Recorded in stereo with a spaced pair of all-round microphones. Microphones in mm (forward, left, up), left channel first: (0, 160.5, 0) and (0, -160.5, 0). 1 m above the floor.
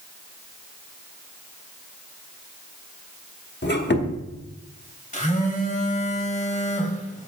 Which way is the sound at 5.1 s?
25° left (ahead or behind).